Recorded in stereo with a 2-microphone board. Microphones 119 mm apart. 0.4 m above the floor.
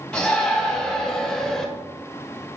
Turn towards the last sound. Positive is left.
turn(degrees=5)  # may be behind; listen again after turning